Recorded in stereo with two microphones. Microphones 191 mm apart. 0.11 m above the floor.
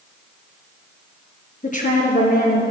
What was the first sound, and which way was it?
A woman speaking, 40° left (ahead or behind).